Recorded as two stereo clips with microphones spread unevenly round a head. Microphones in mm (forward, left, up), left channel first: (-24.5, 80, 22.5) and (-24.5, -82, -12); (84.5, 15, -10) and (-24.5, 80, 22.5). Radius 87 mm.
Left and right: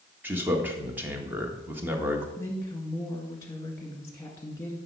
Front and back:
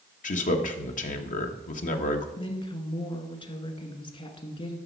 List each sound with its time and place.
0.2 s a man speaking: 10° right, 1.4 m
2.4 s a woman speaking: 15° left, 2.0 m